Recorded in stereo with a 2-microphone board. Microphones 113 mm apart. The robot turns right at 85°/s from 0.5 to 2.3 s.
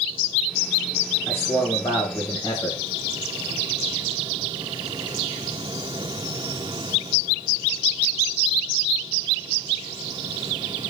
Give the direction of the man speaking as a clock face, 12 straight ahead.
11 o'clock.